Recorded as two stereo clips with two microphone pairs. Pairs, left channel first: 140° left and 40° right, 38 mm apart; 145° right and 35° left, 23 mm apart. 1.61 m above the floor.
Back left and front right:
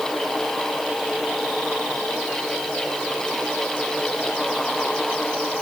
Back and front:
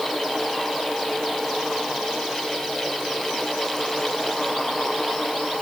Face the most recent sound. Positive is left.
No sound to turn to.